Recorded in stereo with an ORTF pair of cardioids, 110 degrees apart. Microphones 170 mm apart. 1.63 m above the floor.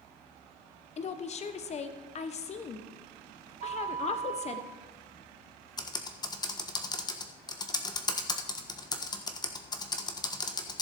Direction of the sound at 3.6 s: 45° right.